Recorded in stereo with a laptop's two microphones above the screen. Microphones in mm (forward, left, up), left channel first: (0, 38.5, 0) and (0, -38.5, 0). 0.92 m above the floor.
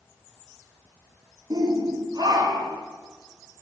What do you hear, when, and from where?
1.5 s a shout: 65° right (ahead or behind), 1.9 m